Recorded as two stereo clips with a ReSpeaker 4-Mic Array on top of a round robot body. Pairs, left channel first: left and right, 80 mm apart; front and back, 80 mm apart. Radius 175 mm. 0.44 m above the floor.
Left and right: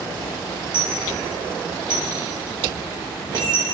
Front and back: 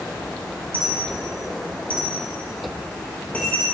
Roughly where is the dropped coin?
Right.